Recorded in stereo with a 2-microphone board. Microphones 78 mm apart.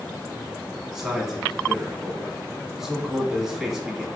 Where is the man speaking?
5° right (ahead or behind), 1.2 m.